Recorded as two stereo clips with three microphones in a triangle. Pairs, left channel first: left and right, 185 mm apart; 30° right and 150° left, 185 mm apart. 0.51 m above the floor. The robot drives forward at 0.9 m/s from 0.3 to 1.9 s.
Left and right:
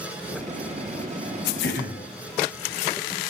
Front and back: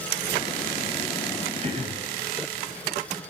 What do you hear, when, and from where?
1.6 s throat clearing: 95° left, 0.7 m; by 2.0 s 115° left, 0.7 m